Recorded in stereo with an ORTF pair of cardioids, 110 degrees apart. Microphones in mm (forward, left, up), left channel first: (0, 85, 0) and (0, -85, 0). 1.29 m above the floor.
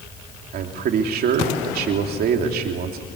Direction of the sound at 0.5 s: 65° right.